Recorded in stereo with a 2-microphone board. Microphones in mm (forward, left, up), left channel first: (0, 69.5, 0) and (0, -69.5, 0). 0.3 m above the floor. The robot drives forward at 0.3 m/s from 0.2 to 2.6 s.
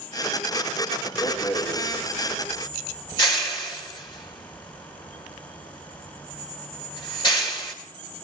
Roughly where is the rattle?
Left.